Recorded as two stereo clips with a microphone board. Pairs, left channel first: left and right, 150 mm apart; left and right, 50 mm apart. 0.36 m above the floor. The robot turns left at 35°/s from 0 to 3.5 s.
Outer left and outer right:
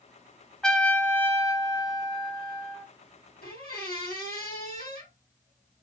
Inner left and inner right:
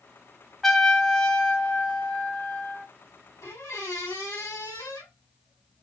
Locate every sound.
0.6 s a trumpet: 170° left, 0.6 m; by 2.9 s 95° left, 0.6 m
3.4 s a squeak: 85° left, 2.5 m